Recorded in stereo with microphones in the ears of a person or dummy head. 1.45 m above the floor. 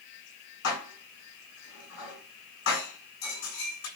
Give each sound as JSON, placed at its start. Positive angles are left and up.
{"t": 0.6, "sound": "dishes clattering", "side_deg": 75, "distance_m": 7.5}